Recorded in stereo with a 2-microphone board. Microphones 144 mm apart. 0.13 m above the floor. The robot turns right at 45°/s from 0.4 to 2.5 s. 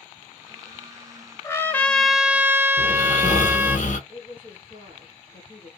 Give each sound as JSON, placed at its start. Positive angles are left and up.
{"t": 1.4, "sound": "a trumpet", "azimuth_deg": 150, "distance_m": 0.6}
{"t": 2.8, "sound": "snoring", "side_deg": 60, "distance_m": 1.0}
{"t": 4.1, "sound": "a woman speaking", "side_deg": 20, "distance_m": 1.9}